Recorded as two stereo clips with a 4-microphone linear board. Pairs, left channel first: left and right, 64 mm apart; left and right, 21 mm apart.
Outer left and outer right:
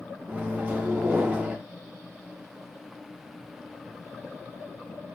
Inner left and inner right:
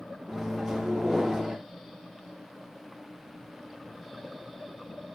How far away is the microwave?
About 0.6 m.